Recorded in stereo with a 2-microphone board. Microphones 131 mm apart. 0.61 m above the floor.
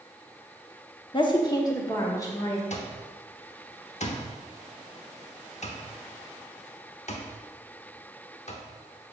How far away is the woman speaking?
About 0.8 m.